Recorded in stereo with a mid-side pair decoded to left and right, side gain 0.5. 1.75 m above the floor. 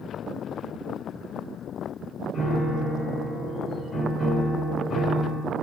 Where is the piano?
45° left, 3 m.